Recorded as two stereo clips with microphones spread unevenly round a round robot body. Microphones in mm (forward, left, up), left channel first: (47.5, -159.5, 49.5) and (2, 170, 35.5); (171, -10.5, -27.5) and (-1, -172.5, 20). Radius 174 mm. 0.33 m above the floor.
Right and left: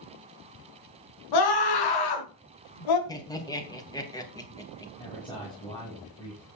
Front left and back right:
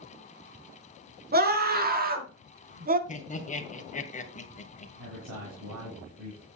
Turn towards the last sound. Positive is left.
turn(degrees=-160)